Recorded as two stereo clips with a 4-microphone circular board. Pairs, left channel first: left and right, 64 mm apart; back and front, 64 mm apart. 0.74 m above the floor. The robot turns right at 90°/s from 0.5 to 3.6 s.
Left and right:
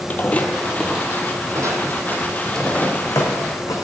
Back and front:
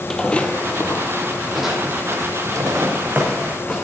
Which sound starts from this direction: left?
Footsteps, at 0.1 s.